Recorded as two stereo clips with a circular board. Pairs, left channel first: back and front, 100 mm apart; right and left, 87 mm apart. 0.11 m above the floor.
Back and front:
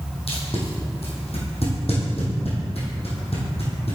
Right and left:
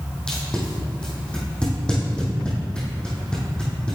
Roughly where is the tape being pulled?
Behind.